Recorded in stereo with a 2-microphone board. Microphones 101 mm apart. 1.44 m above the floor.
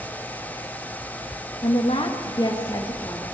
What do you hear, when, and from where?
1.6 s a woman speaking: 80° left, 1.9 m; by 3.2 s 25° left (ahead or behind), 3 m